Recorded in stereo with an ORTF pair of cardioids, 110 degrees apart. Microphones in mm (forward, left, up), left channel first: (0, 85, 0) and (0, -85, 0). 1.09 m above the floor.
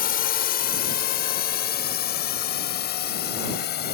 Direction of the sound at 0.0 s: 60° left.